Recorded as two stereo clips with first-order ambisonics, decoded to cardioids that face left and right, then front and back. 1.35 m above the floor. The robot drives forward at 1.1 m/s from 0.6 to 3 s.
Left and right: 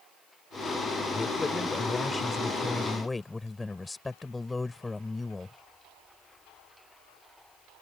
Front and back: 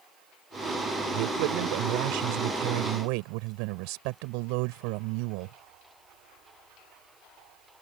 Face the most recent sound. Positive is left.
turn(degrees=175)